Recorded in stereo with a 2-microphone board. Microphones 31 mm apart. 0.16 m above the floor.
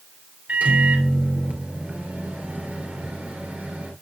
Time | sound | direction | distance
0.5 | a microwave | 55° right (ahead or behind) | 2.5 m